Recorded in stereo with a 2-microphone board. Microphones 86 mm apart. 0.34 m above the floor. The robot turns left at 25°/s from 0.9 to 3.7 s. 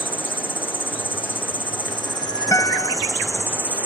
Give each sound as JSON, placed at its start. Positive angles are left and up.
{"t": 0.0, "sound": "an insect", "azimuth_deg": 90}
{"t": 2.5, "sound": "a guitar", "side_deg": 40}